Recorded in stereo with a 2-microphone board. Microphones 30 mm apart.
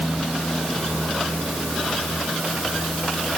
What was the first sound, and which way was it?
Only background noise.